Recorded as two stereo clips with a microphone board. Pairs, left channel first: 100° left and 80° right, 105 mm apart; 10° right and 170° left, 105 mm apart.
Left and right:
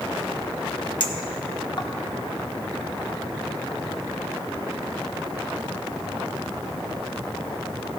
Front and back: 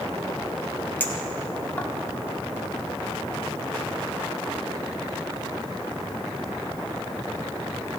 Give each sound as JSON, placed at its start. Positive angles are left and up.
{"t": 1.0, "sound": "a clink", "azimuth_deg": 60, "distance_m": 1.1}